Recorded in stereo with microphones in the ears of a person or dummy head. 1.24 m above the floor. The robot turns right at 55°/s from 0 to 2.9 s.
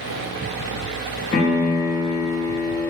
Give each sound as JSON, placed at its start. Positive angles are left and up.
{"t": 1.3, "sound": "a piano", "azimuth_deg": 100, "distance_m": 0.6}